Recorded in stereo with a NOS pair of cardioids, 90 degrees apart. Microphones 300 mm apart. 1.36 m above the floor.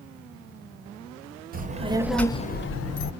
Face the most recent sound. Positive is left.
turn(degrees=70)